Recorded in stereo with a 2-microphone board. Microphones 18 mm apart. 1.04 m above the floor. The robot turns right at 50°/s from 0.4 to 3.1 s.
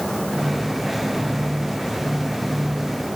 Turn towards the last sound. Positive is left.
No sound to turn to.